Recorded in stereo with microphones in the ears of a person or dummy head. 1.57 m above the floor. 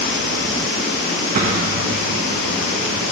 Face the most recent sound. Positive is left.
turn(degrees=-45)  # may be behind; listen again after turning